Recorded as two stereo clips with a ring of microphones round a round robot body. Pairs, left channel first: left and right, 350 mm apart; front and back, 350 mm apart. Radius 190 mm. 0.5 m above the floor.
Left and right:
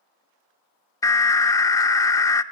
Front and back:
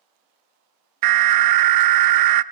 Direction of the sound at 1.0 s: 170° left.